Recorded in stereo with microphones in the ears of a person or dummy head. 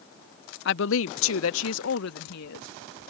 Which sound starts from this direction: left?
A woman speaking, at 0.7 s.